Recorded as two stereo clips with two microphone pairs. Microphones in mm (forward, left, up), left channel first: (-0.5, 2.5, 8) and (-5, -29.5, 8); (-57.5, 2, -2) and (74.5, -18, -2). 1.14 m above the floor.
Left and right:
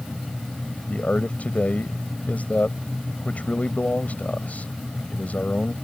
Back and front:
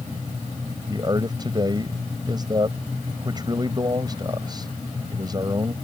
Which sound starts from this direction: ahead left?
A man speaking, at 0.9 s.